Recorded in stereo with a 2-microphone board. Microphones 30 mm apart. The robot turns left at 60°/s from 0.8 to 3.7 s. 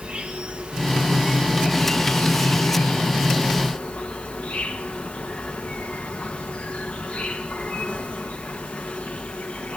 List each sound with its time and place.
0.0 s an insect: 140° right, 1.4 m; by 9.8 s 45° left, 1.4 m